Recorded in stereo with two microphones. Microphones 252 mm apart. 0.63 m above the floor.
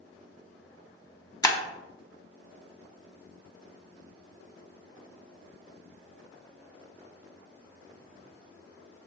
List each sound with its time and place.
1.4 s breaking glass: 15° left (ahead or behind), 0.7 m